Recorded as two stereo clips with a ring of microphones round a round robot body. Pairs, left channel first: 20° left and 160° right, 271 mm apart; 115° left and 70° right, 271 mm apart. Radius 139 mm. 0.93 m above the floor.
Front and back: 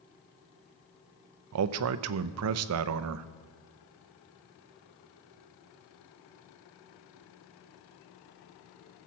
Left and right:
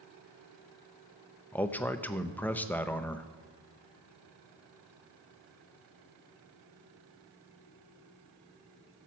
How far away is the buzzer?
No buzzer in this recording.